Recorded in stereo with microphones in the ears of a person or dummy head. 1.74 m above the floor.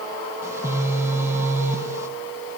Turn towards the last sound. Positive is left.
turn(degrees=-15)  # may be behind; listen again after turning